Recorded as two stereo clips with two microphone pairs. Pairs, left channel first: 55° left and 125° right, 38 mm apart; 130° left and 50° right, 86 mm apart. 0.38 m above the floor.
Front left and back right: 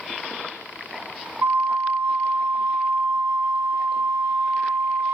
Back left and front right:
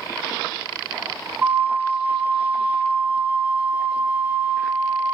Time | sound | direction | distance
1.4 | a flute | 120° right | 0.7 m